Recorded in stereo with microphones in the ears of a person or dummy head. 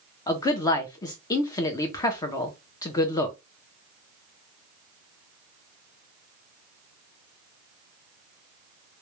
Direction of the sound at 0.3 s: 20° left (ahead or behind).